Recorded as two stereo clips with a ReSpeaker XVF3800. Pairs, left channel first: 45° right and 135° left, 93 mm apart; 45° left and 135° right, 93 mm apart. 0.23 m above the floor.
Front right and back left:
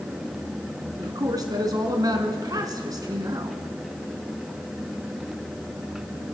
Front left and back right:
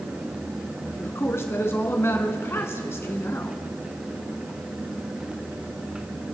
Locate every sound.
1.0 s a man speaking: 100° left, 2 m